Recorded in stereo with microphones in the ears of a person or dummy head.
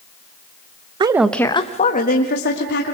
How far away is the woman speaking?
About 0.9 m.